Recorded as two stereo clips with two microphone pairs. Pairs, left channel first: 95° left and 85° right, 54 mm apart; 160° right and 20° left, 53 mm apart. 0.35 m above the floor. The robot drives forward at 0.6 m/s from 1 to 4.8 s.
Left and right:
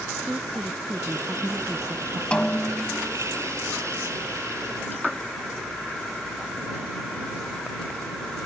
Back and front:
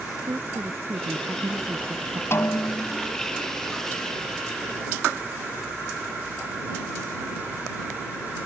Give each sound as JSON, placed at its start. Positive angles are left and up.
{"t": 0.2, "sound": "a woman speaking", "azimuth_deg": -10}
{"t": 2.3, "sound": "a snare drum", "azimuth_deg": 165}